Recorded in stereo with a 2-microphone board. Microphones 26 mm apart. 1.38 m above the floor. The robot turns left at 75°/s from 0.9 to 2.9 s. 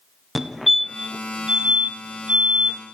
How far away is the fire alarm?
About 1.5 m.